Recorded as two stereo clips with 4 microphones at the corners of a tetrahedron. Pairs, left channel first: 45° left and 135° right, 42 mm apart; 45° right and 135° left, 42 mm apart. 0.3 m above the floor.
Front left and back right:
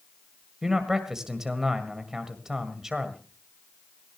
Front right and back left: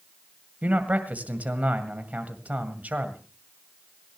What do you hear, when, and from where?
0.6 s a man speaking: 155° left, 1.8 m